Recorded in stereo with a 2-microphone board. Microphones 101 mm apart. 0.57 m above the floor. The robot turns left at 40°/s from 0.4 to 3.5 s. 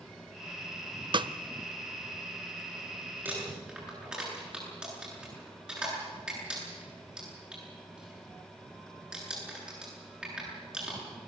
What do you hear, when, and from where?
1.1 s a snare drum: 50° right (ahead or behind), 0.5 m; by 1.3 s 55° right (ahead or behind), 0.5 m
3.2 s crumpling: 20° right (ahead or behind), 9.5 m; by 11.0 s 10° right (ahead or behind), 9.5 m